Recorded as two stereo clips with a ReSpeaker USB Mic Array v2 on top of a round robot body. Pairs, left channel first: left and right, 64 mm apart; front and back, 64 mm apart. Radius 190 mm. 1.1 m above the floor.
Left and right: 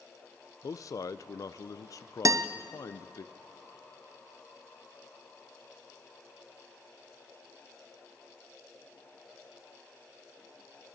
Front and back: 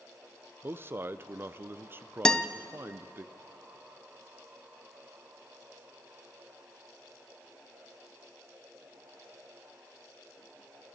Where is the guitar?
80° right, 0.7 m.